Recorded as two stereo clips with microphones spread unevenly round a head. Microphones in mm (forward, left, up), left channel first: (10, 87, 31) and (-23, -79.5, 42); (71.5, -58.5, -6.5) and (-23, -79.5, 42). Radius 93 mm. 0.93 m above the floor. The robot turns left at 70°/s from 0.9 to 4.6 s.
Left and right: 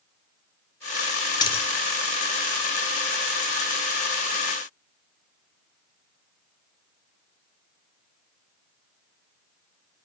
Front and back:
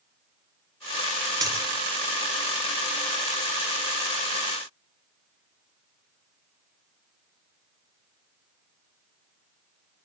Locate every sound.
1.4 s a dropped coin: 145° left, 1.0 m; by 1.7 s 130° left, 1.0 m